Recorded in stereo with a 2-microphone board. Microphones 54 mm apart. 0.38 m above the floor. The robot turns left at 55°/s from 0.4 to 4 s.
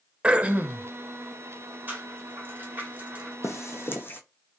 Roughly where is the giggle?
No giggle in this recording.